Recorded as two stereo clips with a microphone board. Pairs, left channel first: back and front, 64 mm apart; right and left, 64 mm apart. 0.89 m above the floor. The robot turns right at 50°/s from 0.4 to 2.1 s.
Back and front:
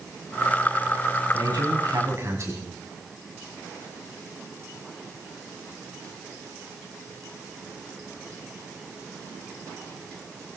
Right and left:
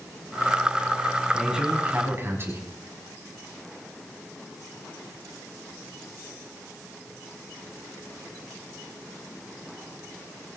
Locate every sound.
1.3 s a man speaking: straight ahead, 5.5 m; by 2.6 s 40° left, 5.5 m